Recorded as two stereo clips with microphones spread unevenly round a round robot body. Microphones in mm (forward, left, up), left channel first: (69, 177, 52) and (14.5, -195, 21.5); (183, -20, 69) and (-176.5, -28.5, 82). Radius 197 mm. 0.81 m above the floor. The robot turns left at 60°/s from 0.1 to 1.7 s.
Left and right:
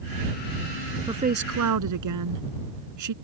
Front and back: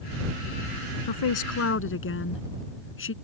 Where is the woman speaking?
20° right; by 3.1 s 55° right.